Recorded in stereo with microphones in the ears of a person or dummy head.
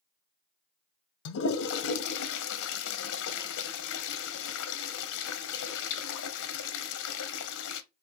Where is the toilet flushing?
70° left (ahead or behind), 0.8 m.